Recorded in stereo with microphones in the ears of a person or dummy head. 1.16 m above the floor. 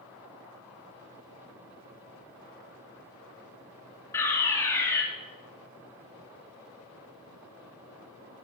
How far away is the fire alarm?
About 4 m.